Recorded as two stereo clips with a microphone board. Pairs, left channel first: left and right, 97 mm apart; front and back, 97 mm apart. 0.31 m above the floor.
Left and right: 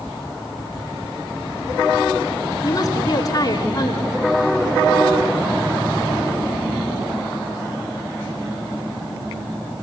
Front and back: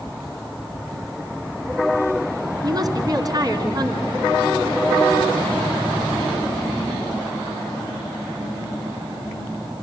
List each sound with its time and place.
2.6 s a woman speaking: 135° left, 3 m